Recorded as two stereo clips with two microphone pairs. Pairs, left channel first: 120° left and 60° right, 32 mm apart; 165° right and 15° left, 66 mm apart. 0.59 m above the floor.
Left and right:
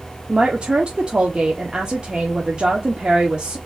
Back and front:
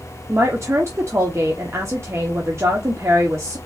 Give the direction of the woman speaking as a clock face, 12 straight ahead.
12 o'clock.